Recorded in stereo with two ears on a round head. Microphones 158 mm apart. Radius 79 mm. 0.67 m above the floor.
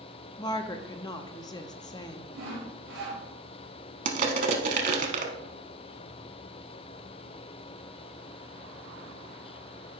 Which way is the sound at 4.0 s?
45° right (ahead or behind).